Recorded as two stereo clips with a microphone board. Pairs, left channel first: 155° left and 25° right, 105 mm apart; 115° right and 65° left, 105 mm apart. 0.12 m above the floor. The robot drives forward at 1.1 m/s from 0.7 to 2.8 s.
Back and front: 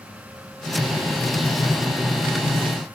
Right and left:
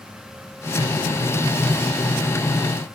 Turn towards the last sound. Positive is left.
No sound to turn to.